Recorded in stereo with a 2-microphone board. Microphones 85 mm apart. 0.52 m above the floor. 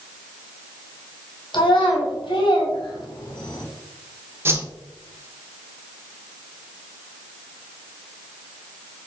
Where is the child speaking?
80° left, 2.5 m; by 3.6 s 60° left (ahead or behind), 2 m.